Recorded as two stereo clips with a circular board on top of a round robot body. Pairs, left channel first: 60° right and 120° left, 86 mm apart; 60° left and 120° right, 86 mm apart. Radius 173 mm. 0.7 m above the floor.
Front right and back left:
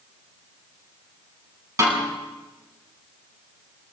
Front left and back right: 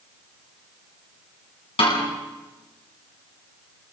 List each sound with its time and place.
1.8 s a snare drum: 65° left, 9 m